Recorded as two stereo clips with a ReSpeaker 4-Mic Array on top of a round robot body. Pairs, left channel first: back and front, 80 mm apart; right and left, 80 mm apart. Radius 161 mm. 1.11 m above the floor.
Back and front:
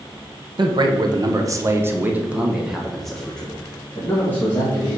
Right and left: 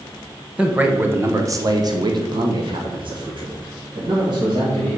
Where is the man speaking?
15° left, 1.5 m; by 5.0 s 115° left, 3 m.